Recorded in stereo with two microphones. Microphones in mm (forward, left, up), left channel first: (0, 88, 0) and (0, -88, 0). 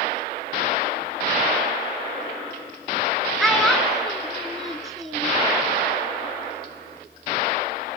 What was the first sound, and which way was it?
A child speaking, centre (ahead or behind).